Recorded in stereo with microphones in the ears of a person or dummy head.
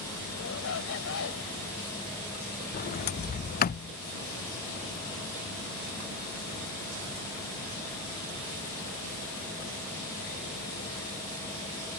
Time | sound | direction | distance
0.3 | a shout | 75° left (ahead or behind) | ?
2.7 | a sliding door | 45° left (ahead or behind) | ?